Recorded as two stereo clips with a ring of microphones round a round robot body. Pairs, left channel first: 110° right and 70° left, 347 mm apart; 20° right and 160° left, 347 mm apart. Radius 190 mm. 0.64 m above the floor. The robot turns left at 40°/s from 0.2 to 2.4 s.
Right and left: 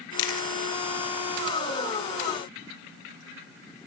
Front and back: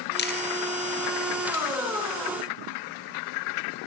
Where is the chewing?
85° right, 5 m; by 0.5 s 95° right, 5 m.